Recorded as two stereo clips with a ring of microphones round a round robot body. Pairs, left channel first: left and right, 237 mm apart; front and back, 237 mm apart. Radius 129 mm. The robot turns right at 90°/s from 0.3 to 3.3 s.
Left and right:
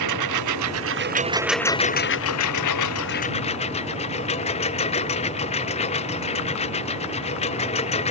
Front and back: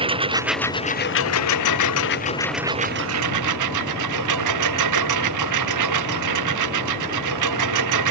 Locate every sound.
0.0 s a lawn mower: 110° right; by 8.1 s 160° left